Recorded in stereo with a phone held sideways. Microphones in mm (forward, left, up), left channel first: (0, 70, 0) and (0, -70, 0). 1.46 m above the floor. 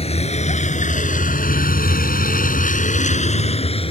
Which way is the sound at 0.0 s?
45° left (ahead or behind).